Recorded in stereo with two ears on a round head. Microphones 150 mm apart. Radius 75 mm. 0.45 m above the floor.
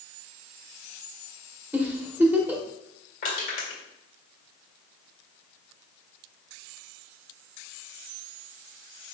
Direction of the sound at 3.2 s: 55° left (ahead or behind).